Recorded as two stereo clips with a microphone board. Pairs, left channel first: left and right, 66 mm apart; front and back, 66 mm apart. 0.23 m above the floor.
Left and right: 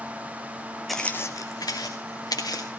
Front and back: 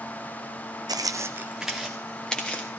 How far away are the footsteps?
About 0.7 m.